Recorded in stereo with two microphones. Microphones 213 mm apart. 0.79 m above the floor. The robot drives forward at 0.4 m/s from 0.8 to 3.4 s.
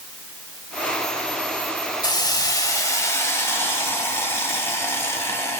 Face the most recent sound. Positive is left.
turn(degrees=10)  # may be behind; listen again after turning